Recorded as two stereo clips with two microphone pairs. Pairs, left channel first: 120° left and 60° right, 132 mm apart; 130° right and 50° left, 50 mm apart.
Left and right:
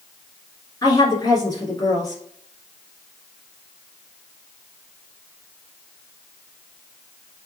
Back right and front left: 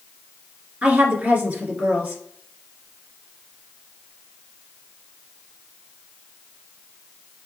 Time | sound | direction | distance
0.8 | a woman speaking | 85° left | 1.7 m